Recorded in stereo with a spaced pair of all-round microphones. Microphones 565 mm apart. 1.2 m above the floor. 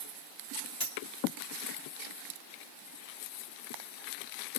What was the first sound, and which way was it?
A dropped coin, 30° left (ahead or behind).